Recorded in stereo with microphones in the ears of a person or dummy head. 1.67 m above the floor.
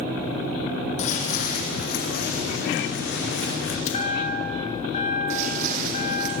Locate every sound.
1.0 s footsteps: 40° left (ahead or behind), 3 m; by 3.8 s 65° left (ahead or behind), 6 m
3.9 s a chime: 35° left (ahead or behind), 6 m
5.3 s footsteps: 50° right (ahead or behind), 4 m; by 6.3 s 60° right (ahead or behind), 4 m